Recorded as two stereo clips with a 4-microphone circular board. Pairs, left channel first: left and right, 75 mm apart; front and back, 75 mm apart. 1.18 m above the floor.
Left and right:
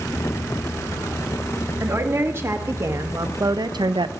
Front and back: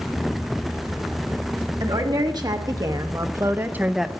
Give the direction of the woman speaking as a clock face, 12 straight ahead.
5 o'clock.